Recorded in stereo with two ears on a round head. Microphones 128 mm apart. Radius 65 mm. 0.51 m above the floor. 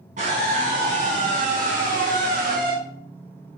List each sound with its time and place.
0.2 s a scream: 55° right (ahead or behind), 4 m; by 2.8 s 65° right (ahead or behind), 2.5 m